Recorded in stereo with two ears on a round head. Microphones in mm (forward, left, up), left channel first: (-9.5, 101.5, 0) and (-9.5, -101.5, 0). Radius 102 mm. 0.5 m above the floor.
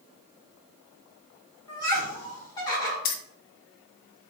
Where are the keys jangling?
40° left (ahead or behind), 0.6 m.